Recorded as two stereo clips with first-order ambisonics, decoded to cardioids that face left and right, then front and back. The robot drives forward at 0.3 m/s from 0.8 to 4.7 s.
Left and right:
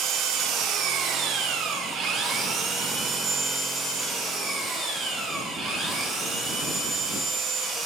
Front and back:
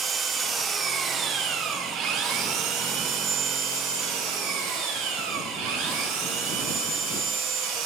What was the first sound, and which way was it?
An engine running, 120° right.